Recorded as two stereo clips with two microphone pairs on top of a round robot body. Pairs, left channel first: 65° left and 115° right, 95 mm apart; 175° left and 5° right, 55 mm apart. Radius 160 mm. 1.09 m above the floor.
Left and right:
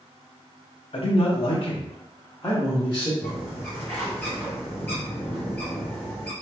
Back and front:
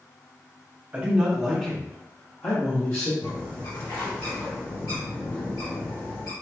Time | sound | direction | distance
0.9 | a man speaking | 55° left | 0.9 m
3.2 | a bird | 140° left | 0.8 m